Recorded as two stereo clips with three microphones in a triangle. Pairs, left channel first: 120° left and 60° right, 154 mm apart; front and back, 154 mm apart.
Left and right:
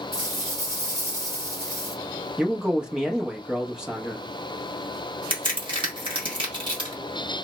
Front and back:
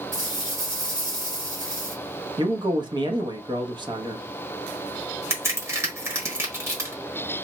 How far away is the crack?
About 1.4 m.